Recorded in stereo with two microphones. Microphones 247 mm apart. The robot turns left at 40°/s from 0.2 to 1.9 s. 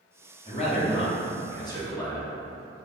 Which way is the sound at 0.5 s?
25° left (ahead or behind).